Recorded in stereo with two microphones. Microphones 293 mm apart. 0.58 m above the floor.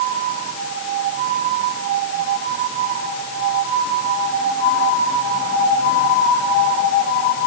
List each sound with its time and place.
Only background noise.